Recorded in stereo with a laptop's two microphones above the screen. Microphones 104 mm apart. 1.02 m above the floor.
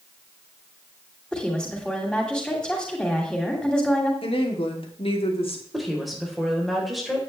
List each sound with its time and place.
1.3 s a woman speaking: 5° left (ahead or behind), 2.5 m
4.2 s a woman speaking: 65° left (ahead or behind), 2.5 m
5.7 s a woman speaking: centre (ahead or behind), 3.5 m